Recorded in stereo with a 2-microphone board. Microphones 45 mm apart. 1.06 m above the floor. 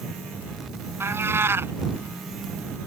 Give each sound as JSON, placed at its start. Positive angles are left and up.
{"t": 1.0, "sound": "a cat meowing", "side_deg": -70}